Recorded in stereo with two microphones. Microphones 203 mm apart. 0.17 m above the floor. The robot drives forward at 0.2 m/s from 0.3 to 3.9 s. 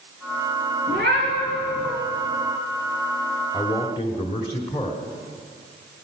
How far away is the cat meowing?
About 5.5 m.